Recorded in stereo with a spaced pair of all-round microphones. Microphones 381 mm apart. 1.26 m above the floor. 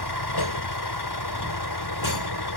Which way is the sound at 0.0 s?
80° left.